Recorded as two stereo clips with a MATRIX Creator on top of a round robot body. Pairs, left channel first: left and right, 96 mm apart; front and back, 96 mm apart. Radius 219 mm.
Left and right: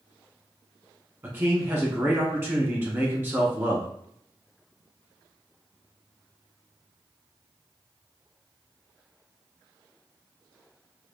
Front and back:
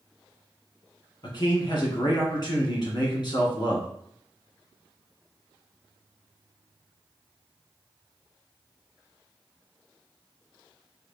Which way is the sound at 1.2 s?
35° right.